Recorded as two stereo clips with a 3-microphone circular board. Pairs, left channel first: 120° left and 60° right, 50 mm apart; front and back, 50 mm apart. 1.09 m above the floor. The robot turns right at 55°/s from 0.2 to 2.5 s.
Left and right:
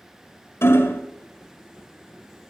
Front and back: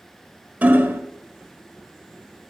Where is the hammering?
120° left, 1.4 m; by 1.0 s 145° left, 1.4 m.